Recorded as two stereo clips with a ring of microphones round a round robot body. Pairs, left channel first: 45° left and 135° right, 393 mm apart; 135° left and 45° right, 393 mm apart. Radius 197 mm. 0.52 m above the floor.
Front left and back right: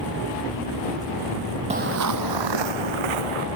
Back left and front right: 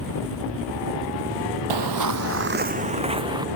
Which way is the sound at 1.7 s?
65° right.